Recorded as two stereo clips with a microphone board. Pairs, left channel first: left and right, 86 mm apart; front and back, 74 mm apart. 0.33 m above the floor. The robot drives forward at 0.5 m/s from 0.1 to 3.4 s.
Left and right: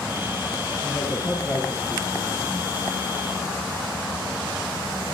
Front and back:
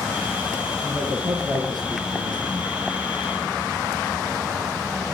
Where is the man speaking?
150° left, 6.5 m; by 2.9 s 155° left, 7.5 m.